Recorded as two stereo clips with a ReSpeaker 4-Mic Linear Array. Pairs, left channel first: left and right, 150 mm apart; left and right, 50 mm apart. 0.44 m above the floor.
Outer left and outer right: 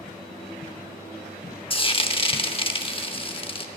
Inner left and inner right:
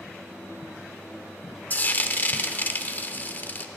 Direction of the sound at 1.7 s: 35° left (ahead or behind).